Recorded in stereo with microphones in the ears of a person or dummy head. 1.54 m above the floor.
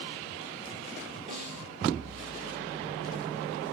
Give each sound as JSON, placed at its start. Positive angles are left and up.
{"t": 1.3, "sound": "a snare drum", "side_deg": -35, "distance_m": 4.0}